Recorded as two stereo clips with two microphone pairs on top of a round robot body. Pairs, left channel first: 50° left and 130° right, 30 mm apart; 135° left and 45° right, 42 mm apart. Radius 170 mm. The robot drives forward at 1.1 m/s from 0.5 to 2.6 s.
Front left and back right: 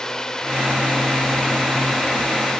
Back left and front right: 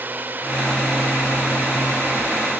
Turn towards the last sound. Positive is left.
turn(degrees=-25)